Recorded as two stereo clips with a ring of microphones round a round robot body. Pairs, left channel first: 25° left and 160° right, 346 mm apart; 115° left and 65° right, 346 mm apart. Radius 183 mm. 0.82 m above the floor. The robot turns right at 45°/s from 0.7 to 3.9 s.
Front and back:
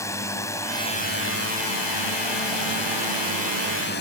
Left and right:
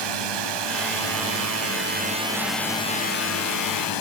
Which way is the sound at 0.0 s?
60° right.